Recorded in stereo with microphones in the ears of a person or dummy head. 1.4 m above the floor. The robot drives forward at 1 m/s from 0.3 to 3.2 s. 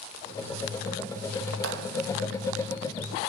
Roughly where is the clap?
Right.